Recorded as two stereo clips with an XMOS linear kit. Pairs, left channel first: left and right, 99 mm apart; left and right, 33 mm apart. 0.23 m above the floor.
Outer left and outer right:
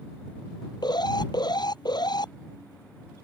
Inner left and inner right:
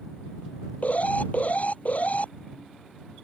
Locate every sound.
0.8 s an alarm: 40° left (ahead or behind)